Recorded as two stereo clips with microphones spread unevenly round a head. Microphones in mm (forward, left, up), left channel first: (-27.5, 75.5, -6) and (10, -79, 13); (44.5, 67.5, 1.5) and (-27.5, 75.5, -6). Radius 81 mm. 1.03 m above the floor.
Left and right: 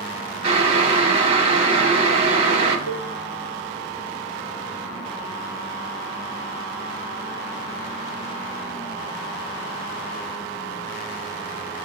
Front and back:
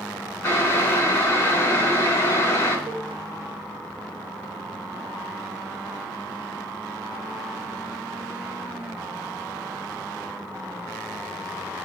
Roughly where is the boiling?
Ahead right.